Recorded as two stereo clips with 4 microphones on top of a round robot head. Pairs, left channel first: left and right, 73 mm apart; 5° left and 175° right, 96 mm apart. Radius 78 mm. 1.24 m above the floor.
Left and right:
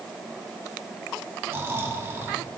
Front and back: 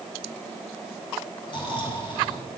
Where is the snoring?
35° right, 1.5 m.